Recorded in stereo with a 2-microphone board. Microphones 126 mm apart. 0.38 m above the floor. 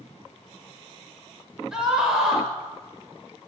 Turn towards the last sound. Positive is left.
turn(degrees=-5)  # may be behind; listen again after turning